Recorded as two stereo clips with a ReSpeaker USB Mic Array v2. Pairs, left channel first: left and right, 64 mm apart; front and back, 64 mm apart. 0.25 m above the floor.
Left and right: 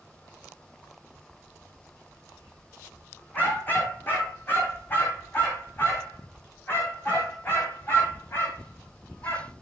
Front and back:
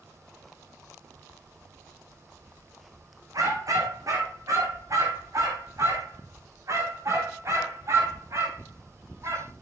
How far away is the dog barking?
About 6 m.